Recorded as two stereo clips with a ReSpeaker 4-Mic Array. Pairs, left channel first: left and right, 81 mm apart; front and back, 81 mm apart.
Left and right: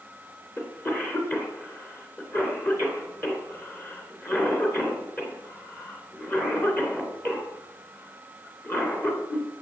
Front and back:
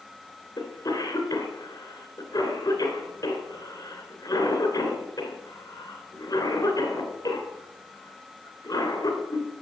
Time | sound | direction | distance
0.6 | a cough | 30° left | 3 m